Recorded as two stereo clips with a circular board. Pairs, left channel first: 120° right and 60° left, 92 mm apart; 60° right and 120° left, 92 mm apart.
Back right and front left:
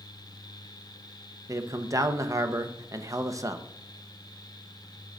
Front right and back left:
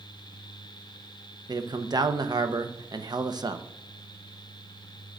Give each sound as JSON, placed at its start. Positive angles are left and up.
{"t": 1.5, "sound": "a man speaking", "azimuth_deg": 100, "distance_m": 0.6}